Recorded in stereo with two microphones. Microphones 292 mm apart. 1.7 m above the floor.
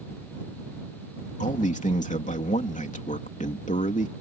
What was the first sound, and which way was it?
A man speaking, 25° left (ahead or behind).